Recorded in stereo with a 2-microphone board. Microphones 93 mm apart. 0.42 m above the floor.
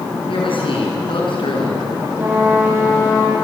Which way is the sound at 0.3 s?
70° left (ahead or behind).